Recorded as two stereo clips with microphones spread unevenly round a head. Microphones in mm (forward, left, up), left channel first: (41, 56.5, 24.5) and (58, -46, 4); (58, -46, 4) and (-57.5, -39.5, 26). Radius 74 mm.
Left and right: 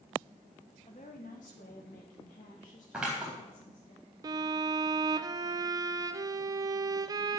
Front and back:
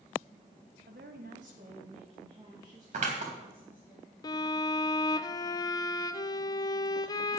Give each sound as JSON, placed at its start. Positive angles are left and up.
{"t": 0.9, "sound": "a woman speaking", "azimuth_deg": 155, "distance_m": 1.6}
{"t": 2.9, "sound": "scissors", "azimuth_deg": -170, "distance_m": 3.5}
{"t": 4.2, "sound": "a violin", "azimuth_deg": -45, "distance_m": 0.6}